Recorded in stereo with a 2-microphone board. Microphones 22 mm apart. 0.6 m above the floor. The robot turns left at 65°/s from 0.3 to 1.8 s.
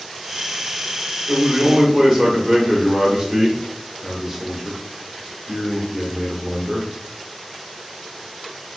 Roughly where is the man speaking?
Behind right.